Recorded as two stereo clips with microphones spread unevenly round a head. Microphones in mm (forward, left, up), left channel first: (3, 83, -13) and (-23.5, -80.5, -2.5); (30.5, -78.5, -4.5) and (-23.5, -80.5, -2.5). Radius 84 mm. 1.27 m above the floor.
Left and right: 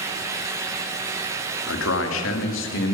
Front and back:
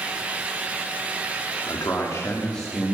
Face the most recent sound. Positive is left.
turn(degrees=100)